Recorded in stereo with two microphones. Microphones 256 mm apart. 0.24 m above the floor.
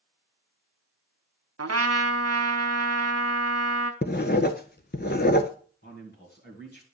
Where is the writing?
40° left (ahead or behind), 0.5 m.